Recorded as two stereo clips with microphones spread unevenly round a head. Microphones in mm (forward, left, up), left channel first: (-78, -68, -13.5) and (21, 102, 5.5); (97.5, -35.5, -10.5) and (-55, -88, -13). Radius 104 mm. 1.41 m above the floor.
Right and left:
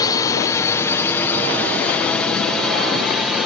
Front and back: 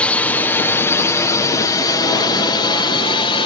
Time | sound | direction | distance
0.0 | a drone | 60° right | ?